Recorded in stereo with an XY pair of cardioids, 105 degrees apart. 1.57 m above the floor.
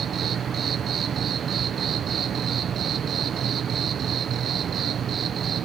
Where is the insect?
50° right.